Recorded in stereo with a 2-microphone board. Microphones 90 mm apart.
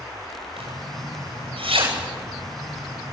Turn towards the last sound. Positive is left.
turn(degrees=-85)